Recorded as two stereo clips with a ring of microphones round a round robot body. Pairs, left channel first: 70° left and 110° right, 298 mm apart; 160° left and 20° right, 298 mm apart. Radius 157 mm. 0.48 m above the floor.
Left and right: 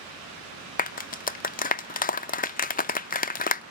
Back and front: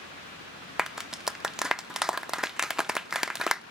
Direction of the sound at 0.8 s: 65° left.